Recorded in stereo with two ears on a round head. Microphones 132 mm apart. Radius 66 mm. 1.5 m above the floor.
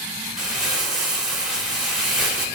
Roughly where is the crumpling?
Centre.